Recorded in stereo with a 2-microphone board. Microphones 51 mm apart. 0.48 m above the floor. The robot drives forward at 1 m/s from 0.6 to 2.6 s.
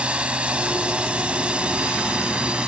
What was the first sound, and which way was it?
A drone, 20° right (ahead or behind).